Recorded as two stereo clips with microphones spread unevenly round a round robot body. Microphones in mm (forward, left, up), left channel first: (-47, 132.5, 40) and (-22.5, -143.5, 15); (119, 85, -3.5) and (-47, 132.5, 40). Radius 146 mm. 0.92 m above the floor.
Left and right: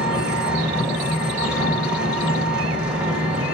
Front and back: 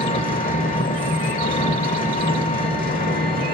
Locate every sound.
0.0 s an engine running: straight ahead, 1.2 m